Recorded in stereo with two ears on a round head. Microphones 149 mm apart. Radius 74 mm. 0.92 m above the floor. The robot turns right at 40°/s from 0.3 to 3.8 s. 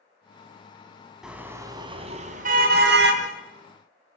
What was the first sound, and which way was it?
A car horn, 175° right.